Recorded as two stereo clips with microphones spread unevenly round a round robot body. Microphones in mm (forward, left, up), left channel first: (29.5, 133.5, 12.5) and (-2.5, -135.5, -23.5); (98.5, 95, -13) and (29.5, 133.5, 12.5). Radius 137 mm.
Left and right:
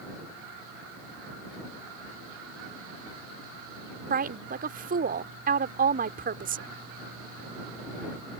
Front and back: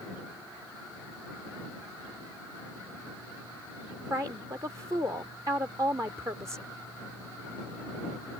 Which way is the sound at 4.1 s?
135° right.